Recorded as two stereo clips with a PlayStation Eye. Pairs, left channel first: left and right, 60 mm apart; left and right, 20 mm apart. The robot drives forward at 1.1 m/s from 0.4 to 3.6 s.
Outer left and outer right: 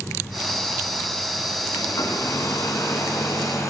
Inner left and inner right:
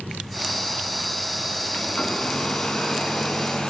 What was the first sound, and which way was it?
A hair dryer, 75° left (ahead or behind).